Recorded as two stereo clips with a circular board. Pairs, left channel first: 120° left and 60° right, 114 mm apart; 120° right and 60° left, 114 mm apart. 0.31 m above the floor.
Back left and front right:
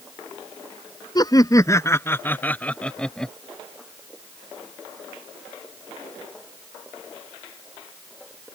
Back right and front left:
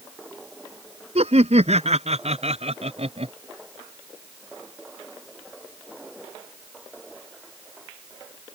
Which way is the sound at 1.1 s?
70° left.